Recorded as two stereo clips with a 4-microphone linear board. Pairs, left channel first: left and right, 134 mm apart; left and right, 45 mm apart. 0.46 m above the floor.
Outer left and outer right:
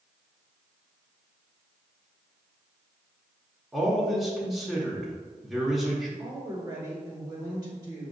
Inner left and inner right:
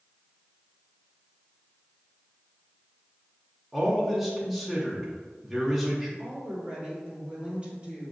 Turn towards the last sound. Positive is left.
turn(degrees=-30)  # may be behind; listen again after turning